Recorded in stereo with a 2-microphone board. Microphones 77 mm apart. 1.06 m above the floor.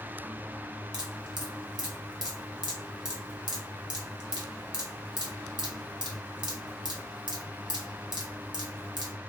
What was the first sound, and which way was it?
Dripping, 60° right (ahead or behind).